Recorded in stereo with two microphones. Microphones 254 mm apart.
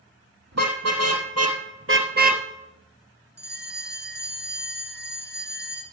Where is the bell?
40° right (ahead or behind), 1.8 m.